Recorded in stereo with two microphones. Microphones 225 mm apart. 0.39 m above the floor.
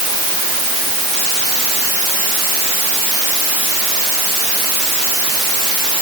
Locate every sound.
Only background noise.